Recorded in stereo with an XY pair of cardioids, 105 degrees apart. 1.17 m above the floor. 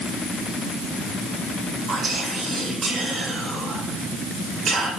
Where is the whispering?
50° right, 3.5 m.